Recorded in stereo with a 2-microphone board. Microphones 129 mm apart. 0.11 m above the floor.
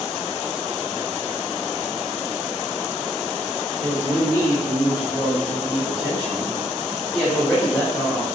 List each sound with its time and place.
3.8 s a woman speaking: 10° right (ahead or behind), 1.8 m; by 8.2 s 20° left (ahead or behind), 1.5 m